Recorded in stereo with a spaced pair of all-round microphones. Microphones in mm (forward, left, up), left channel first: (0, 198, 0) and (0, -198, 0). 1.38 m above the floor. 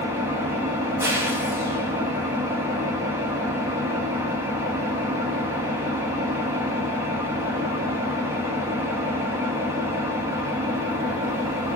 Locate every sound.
0.0 s an engine running: 5° right (ahead or behind), 0.8 m